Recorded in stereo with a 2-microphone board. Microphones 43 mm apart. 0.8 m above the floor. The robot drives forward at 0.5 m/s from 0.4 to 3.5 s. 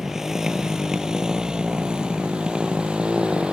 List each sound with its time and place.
0.0 s a motorcycle: 10° right (ahead or behind); by 3.5 s 25° right (ahead or behind)